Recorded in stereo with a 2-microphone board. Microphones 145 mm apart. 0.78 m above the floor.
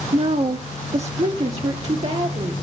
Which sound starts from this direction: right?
A woman speaking, at 0.1 s.